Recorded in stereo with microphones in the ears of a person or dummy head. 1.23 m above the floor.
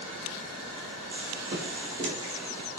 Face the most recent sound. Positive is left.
turn(degrees=-25)  # may be behind; listen again after turning